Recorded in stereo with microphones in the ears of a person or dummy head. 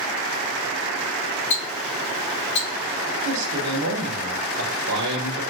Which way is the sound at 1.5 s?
35° left (ahead or behind).